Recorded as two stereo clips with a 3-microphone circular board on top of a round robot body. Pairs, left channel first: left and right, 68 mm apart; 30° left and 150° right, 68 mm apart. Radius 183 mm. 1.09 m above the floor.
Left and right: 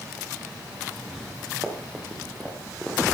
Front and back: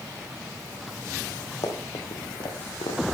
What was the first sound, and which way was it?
Running footsteps, 5° right.